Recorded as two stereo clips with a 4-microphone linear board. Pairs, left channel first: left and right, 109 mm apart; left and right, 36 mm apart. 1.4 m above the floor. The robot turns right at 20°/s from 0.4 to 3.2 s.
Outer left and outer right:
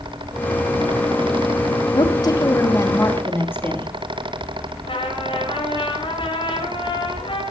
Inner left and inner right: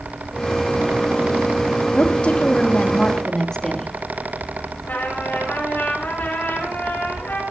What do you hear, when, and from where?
1.9 s a woman speaking: 45° left (ahead or behind), 3 m; by 3.9 s 20° left (ahead or behind), 3 m
4.8 s a trumpet: 55° left (ahead or behind), 9.5 m